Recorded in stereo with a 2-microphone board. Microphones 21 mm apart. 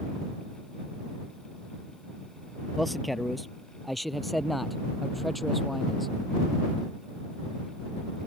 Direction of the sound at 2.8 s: 5° left (ahead or behind).